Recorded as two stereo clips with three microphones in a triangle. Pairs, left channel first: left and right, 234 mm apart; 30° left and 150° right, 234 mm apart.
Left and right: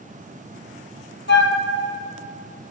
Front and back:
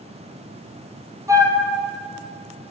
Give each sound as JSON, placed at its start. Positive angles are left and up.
{"t": 1.3, "sound": "a flute", "azimuth_deg": 135, "distance_m": 1.3}